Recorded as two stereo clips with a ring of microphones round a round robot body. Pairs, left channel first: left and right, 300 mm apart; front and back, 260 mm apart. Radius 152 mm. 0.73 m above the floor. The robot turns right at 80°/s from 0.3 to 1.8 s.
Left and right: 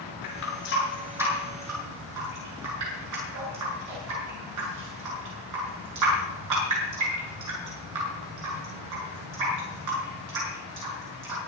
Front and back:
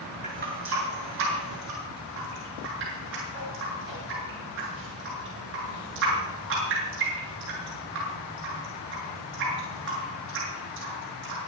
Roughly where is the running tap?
Behind left.